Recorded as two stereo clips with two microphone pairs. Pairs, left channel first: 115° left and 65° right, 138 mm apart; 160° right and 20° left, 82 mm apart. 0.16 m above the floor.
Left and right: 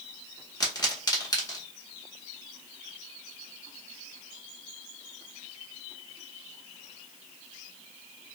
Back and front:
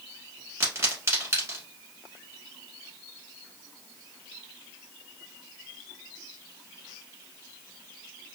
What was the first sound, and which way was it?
A pop, 65° left.